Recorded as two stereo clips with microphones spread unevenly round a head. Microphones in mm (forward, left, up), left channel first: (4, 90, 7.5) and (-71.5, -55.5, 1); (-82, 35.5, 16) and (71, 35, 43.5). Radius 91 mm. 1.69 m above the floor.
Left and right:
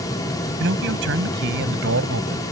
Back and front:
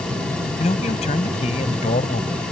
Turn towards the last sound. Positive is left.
turn(degrees=-120)